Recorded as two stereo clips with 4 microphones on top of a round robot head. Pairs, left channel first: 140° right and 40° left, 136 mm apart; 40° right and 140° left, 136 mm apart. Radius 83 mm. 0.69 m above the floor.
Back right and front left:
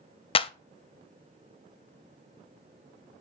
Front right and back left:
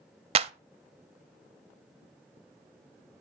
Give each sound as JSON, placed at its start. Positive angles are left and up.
{"t": 0.3, "sound": "a clap", "azimuth_deg": 180, "distance_m": 0.5}